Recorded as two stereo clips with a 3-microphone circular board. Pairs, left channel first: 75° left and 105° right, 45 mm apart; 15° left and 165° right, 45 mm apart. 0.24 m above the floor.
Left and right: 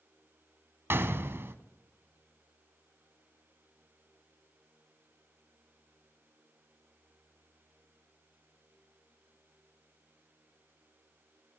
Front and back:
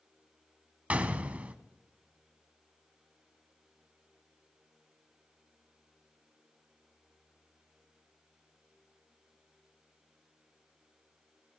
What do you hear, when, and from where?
0.9 s a gunshot: 110° right, 0.8 m